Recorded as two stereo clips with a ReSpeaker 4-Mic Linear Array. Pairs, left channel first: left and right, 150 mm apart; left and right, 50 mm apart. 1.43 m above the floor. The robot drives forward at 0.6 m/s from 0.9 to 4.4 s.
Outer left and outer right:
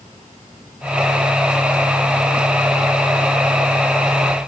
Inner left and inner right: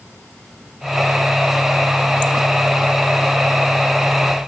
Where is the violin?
I don't hear a violin.